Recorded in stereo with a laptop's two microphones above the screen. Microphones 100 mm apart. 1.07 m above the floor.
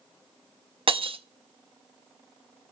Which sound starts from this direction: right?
Breaking glass, at 0.9 s.